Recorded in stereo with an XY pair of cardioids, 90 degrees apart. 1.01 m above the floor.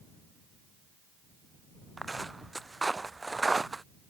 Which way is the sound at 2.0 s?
15° right.